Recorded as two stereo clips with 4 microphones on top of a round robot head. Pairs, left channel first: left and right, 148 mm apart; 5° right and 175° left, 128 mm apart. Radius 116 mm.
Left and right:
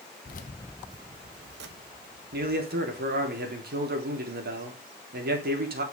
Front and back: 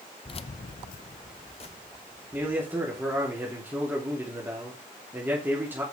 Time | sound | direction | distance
0.2 | keys jangling | 45° left | 0.7 m
2.3 | a man speaking | 105° right | 3 m